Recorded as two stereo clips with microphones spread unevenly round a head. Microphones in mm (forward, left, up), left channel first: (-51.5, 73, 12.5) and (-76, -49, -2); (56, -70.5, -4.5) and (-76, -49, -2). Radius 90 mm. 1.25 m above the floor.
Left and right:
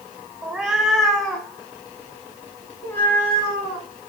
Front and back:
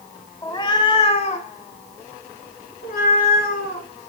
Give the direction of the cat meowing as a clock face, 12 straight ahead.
12 o'clock.